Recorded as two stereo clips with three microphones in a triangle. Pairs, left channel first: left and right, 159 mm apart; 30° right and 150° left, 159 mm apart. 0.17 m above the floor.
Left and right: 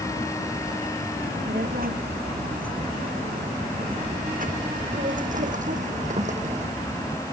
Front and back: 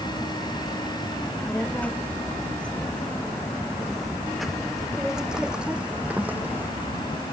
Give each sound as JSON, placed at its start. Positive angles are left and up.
{"t": 1.2, "sound": "a child speaking", "azimuth_deg": -110}